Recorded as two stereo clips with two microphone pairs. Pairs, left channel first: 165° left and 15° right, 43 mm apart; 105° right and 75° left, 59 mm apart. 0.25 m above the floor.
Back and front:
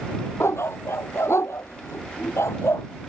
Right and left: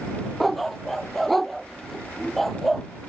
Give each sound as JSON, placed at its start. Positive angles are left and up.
{"t": 0.4, "sound": "a dog barking", "azimuth_deg": 165}